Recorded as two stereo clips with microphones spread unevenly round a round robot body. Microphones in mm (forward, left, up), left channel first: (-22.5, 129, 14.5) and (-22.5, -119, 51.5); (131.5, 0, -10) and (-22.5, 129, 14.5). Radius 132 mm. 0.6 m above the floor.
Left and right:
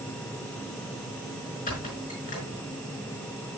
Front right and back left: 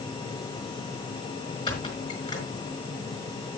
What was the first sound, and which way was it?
A squeak, 30° left.